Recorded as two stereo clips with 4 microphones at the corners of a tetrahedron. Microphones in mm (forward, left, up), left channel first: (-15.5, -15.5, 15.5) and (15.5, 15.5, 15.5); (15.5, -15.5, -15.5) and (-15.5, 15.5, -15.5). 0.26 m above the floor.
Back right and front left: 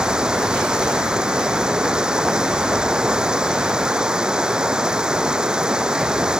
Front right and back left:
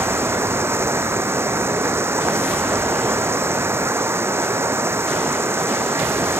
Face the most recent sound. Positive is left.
turn(degrees=115)